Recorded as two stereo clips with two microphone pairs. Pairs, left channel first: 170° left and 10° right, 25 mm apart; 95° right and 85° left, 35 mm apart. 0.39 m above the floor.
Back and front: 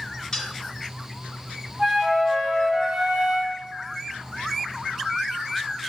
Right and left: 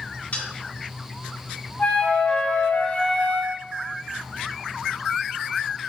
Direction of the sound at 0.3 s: 135° right.